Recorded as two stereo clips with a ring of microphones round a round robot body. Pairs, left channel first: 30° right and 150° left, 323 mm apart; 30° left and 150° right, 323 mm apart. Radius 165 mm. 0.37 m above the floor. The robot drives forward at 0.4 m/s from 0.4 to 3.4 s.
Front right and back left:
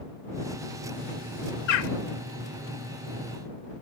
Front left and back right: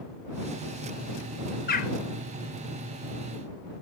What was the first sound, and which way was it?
A bird, 35° right.